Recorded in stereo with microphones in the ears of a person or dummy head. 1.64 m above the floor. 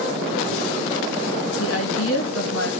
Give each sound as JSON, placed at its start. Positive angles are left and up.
{"t": 1.6, "sound": "a woman speaking", "side_deg": 75, "distance_m": 2.5}